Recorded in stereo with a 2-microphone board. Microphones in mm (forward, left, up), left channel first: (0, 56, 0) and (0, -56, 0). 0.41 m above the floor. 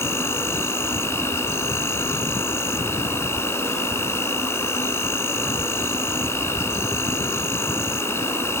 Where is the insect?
25° left (ahead or behind), 0.9 m.